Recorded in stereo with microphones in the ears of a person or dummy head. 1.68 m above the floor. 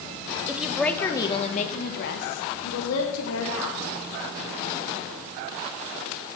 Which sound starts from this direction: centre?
A woman speaking, at 0.5 s.